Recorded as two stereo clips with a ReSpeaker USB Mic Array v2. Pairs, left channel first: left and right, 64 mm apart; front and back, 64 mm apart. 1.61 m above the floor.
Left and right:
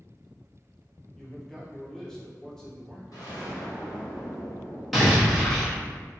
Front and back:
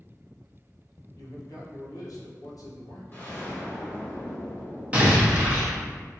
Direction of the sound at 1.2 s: 10° left.